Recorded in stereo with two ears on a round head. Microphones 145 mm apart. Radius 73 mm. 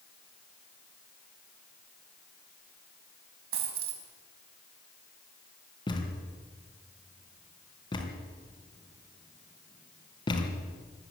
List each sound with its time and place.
3.5 s a dropped coin: 65° right (ahead or behind), 4.5 m
5.9 s a thud: 30° left (ahead or behind), 3.5 m